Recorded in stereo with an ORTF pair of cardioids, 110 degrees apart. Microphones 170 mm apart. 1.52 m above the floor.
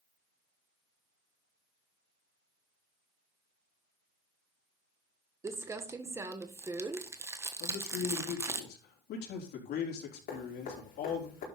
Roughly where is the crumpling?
Ahead.